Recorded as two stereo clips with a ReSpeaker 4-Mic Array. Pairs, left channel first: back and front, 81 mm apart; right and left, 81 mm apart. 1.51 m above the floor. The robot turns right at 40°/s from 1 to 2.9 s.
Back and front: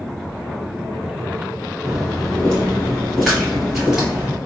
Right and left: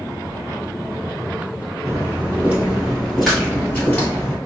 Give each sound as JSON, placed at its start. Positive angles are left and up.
{"t": 1.9, "sound": "footsteps", "azimuth_deg": 85, "distance_m": 1.8}